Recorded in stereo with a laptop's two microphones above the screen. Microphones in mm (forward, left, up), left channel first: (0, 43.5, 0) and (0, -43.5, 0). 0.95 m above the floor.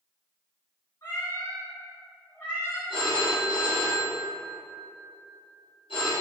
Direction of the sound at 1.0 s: 40° left (ahead or behind).